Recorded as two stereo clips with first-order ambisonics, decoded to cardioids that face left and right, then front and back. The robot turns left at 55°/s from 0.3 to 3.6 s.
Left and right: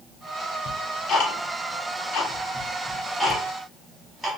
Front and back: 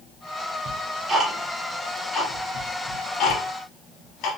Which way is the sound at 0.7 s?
145° left.